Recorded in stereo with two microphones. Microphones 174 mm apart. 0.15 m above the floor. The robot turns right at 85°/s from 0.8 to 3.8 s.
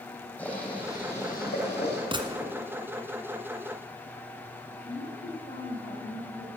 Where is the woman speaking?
55° left (ahead or behind), 4 m.